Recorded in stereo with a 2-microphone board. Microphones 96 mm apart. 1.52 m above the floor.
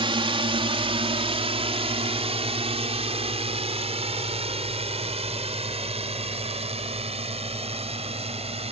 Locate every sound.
0.0 s a drone: 60° right (ahead or behind); by 8.7 s 80° right